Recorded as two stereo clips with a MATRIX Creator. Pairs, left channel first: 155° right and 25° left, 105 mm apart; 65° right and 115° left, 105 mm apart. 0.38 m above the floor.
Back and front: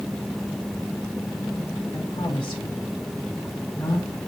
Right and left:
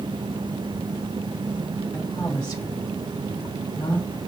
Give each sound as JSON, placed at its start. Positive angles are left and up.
{"t": 1.9, "sound": "a woman speaking", "azimuth_deg": -125, "distance_m": 2.0}